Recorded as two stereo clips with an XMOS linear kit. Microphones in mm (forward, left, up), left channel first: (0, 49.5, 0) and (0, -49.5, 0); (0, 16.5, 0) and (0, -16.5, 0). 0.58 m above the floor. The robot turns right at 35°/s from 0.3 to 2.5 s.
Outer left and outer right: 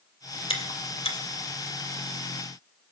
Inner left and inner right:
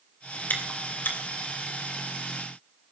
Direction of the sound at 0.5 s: 65° left (ahead or behind).